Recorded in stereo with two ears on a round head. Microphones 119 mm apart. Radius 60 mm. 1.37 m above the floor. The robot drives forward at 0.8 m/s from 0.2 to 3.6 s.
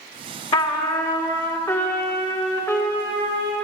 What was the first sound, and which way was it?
A trumpet, 40° left (ahead or behind).